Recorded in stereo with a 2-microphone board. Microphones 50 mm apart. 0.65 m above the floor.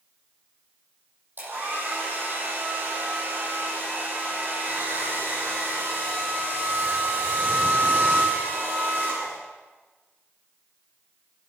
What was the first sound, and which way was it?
A hair dryer, 40° right (ahead or behind).